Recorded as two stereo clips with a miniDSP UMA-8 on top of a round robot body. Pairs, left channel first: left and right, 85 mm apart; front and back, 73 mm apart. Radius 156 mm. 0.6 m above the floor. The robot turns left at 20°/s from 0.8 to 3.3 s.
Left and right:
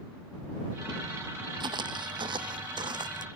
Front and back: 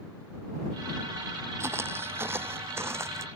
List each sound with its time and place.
1.6 s footsteps: 125° right